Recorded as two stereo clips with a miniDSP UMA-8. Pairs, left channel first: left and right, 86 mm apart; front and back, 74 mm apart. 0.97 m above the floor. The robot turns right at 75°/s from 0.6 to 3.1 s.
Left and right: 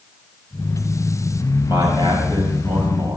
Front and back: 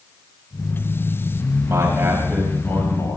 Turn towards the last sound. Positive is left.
turn(degrees=-40)